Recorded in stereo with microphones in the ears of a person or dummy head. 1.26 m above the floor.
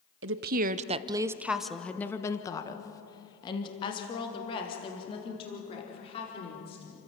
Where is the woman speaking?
55° right (ahead or behind), 0.8 m; by 7.0 s 30° left (ahead or behind), 5 m.